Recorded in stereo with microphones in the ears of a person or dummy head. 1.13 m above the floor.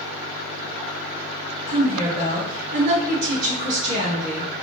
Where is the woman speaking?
60° right (ahead or behind), 1.9 m.